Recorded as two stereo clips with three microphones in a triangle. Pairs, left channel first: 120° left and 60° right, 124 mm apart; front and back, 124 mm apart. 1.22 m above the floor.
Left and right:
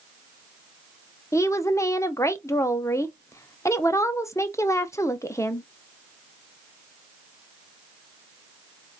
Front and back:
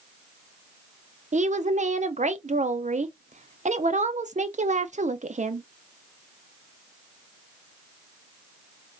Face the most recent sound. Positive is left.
turn(degrees=-175)